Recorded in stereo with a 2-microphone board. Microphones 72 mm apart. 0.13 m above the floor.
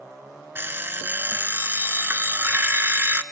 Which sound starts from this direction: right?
An alarm clock, at 0.6 s.